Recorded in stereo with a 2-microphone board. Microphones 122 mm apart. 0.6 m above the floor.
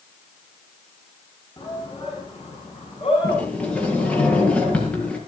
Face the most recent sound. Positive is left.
turn(degrees=10)  # may be behind; listen again after turning